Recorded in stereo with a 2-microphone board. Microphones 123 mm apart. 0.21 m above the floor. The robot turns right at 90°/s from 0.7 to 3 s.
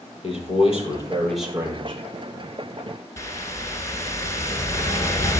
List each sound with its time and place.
0.2 s a man speaking: 120° left, 5.5 m; by 2.0 s 120° right, 5.5 m
3.2 s a whoosh: 30° left (ahead or behind), 1.8 m